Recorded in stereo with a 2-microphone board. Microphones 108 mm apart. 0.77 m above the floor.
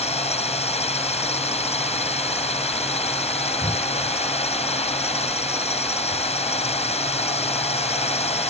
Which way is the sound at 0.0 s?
75° left (ahead or behind).